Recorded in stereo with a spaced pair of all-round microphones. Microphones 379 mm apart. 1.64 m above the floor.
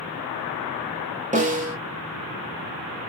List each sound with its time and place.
1.3 s a snare drum: 20° right (ahead or behind), 0.8 m